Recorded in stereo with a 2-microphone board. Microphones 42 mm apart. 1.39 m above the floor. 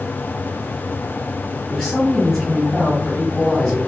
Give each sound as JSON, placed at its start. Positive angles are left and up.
{"t": 1.7, "sound": "a woman speaking", "side_deg": 25, "distance_m": 2.0}